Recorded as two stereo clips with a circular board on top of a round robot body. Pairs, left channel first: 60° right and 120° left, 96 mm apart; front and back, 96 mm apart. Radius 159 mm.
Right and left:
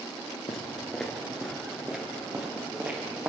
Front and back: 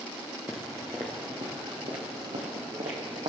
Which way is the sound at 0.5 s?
80° right.